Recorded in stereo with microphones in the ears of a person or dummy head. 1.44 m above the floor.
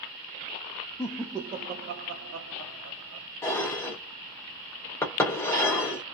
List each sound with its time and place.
1.0 s laughter: 10° left (ahead or behind), 0.5 m; by 3.3 s 90° right, 1.3 m
3.4 s dishes clattering: 15° left (ahead or behind), 0.6 m